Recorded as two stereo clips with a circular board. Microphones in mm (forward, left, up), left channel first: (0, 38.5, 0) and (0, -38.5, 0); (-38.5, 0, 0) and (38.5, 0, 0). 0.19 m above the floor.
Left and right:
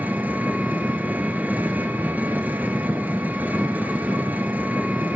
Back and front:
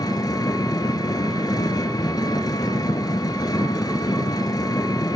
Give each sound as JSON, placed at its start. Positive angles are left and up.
{"t": 0.0, "sound": "an engine running", "azimuth_deg": -155, "distance_m": 1.7}